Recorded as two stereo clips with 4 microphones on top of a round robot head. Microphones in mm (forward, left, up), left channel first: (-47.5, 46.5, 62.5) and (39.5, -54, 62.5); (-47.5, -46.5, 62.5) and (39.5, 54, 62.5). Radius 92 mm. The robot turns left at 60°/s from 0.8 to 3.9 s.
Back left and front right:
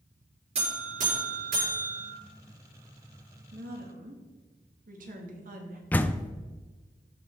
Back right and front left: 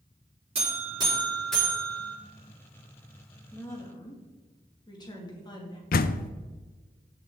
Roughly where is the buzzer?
Ahead.